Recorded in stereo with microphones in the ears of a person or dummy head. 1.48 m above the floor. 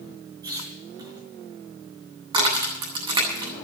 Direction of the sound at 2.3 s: 25° right (ahead or behind).